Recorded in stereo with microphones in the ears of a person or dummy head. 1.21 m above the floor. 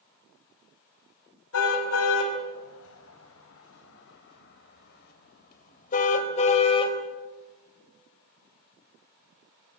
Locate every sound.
1.5 s a car horn: 85° left, 5 m; by 7.0 s 35° left (ahead or behind), 3.5 m